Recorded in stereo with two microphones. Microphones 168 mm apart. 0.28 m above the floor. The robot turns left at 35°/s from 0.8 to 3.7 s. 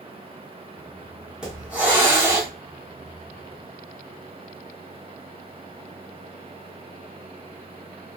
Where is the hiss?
5° right (ahead or behind), 1.7 m; by 2.5 s 20° right (ahead or behind), 1.7 m.